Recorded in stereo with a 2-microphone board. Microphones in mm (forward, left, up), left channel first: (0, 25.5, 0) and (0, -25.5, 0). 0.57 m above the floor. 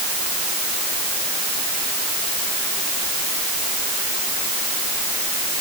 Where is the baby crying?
No baby crying in this recording.